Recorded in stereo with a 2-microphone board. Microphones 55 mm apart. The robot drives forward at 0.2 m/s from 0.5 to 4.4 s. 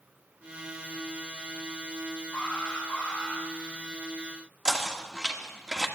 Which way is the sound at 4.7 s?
10° right (ahead or behind).